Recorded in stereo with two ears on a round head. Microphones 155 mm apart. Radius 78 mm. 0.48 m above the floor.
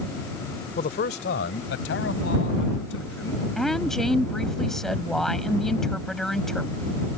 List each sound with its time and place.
0.8 s a man speaking: 45° left (ahead or behind); by 3.5 s 75° left (ahead or behind)
3.6 s a woman speaking: 5° left (ahead or behind)